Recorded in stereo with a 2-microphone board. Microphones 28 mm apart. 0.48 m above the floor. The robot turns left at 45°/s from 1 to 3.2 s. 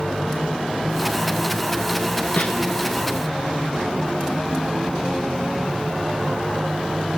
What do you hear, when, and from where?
2.4 s a snare drum: 70° left (ahead or behind), 1.5 m; by 2.5 s 80° left, 1.5 m